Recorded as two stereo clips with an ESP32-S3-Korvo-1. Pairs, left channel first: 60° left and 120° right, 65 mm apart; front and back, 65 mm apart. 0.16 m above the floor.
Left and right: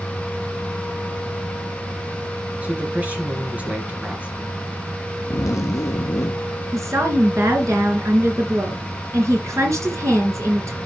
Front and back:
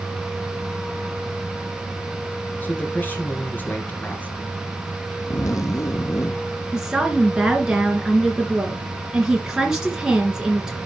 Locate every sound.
2.6 s a man speaking: 55° right, 2.5 m
5.3 s a zipper: 30° left, 0.9 m
6.7 s a woman speaking: 100° right, 2.5 m